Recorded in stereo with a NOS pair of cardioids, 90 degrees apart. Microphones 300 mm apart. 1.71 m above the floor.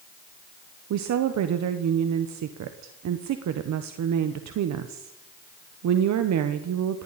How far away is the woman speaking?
About 1.2 m.